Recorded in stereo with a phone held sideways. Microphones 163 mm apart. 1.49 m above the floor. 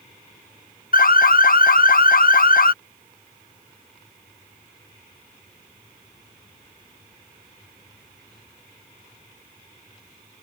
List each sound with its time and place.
0.9 s an alarm: 60° left (ahead or behind)